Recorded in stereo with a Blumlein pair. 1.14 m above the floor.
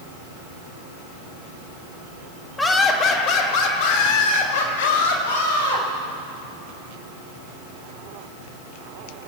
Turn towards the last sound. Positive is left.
turn(degrees=65)